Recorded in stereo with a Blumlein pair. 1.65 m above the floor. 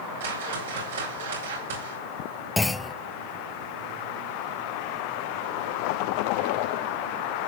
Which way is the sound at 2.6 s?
10° left.